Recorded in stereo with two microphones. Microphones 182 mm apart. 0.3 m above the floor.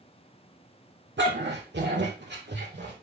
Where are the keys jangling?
I don't hear keys jangling.